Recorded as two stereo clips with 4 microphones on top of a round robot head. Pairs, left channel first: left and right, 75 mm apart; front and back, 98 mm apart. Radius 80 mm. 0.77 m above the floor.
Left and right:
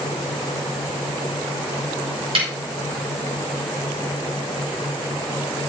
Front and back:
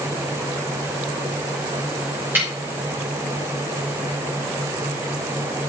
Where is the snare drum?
105° right, 3 m.